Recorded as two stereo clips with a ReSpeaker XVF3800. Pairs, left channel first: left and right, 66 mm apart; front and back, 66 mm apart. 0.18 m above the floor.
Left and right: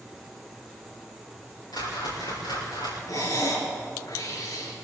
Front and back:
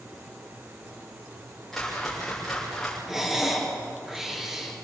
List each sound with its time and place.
1.7 s a whoosh: 90° left, 9.5 m
3.1 s breathing: 100° left, 3.5 m